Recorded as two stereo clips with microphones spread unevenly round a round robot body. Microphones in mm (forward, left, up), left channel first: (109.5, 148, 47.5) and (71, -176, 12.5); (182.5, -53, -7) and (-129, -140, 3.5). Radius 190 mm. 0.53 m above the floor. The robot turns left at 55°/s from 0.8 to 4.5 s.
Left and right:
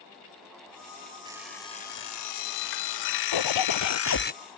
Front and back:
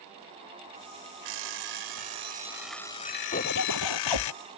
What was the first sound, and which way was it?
An alarm clock, 175° right.